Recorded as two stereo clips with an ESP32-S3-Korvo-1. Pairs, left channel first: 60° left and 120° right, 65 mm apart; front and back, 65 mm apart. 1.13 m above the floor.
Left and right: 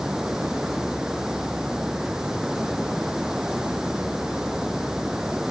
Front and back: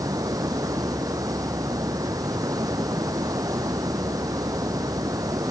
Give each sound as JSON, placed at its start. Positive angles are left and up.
{"t": 0.0, "sound": "running water", "azimuth_deg": 160}